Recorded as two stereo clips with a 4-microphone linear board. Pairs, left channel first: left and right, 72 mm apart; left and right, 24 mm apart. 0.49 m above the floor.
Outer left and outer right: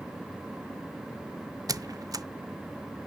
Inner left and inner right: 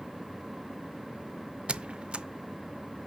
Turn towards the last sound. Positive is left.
turn(degrees=-55)  # may be behind; listen again after turning